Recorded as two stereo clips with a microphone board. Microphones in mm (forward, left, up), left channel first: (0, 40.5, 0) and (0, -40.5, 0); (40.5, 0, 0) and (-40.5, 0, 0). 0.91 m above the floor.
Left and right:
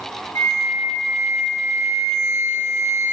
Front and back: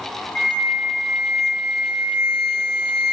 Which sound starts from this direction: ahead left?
A flute, at 0.3 s.